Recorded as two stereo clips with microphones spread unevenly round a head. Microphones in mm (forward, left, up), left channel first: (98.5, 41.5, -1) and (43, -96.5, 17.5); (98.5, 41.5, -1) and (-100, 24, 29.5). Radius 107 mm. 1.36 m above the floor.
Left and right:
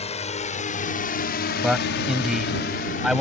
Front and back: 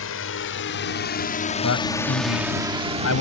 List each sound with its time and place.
0.0 s a drone: 25° left; by 3.2 s 130° left
1.6 s a man speaking: 25° right